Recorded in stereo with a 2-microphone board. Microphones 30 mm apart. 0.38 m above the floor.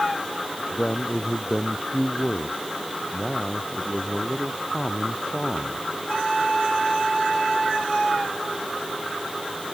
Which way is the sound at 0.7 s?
25° left (ahead or behind).